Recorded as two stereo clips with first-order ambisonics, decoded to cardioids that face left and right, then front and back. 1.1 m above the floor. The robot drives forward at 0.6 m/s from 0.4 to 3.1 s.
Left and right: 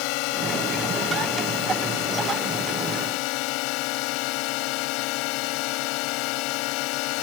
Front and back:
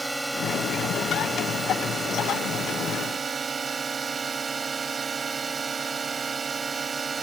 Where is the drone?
95° left; by 7.2 s 110° left.